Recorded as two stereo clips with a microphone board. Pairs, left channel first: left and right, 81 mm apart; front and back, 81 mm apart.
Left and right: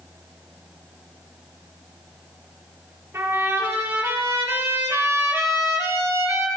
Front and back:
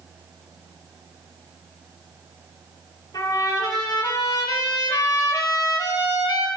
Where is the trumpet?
35° right, 6 m.